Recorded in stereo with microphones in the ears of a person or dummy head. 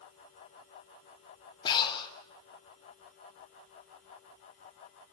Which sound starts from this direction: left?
Breathing, at 1.6 s.